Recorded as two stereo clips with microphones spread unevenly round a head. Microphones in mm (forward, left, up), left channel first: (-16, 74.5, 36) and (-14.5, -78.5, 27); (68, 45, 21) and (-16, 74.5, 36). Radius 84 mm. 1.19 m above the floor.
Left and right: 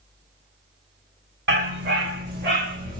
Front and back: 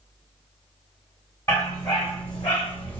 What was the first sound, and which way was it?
A dog barking, 95° right.